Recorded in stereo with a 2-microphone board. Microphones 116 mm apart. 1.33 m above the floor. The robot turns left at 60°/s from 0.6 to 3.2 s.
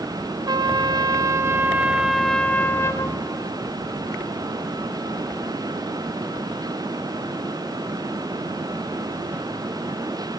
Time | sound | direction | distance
0.5 | a trumpet | 85° right | 0.6 m